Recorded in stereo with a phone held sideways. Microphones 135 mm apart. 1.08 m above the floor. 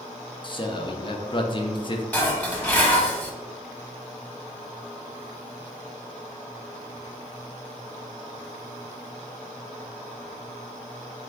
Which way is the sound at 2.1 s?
15° left (ahead or behind).